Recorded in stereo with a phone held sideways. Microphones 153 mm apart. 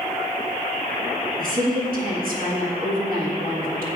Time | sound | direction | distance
1.4 | a woman speaking | 70° right (ahead or behind) | 1.6 m